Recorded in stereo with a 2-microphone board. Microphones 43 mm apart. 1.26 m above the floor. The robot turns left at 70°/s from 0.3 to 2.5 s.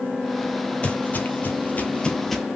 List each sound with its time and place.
0.8 s footsteps: 30° left (ahead or behind), 1.8 m; by 2.4 s 5° right (ahead or behind), 1.6 m